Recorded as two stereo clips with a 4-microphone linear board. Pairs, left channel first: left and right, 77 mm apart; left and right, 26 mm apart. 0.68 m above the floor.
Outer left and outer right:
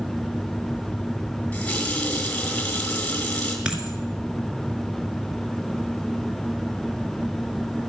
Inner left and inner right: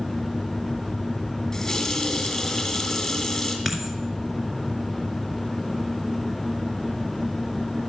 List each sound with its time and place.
1.5 s a running tap: 15° left (ahead or behind), 2.5 m
3.6 s a dropped coin: 10° right (ahead or behind), 2.0 m